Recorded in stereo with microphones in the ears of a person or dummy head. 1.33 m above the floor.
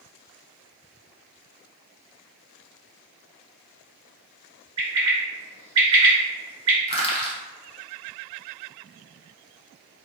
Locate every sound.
4.8 s a bird: 30° right (ahead or behind), 1.7 m
6.9 s crushing: 30° left (ahead or behind), 0.8 m